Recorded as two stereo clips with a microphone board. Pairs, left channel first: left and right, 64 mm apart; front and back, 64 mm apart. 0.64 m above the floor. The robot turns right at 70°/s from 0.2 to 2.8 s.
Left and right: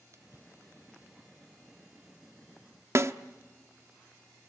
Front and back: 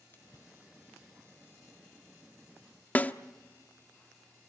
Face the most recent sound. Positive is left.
turn(degrees=-60)